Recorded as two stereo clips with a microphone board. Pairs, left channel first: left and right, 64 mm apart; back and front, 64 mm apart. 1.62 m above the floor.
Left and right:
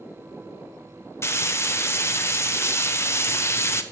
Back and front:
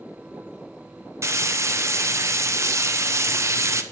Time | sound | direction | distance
1.2 | frying | 45° left | 1.1 m